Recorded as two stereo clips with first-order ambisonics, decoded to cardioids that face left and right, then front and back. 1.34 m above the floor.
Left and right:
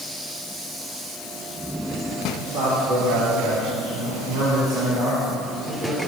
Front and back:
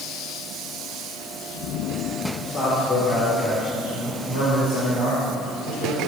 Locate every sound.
2.4 s a man speaking: 70° right, 5 m; by 6.1 s 25° right, 6 m